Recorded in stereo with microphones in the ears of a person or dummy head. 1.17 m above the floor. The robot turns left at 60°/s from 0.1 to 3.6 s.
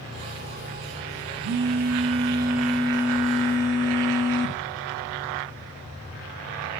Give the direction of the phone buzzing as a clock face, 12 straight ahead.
4 o'clock.